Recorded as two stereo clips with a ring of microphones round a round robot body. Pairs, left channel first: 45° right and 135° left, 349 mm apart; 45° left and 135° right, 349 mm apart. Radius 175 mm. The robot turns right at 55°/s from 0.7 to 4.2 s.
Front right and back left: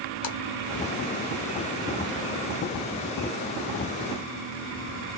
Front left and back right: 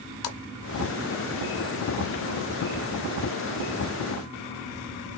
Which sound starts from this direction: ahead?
A splash, at 0.2 s.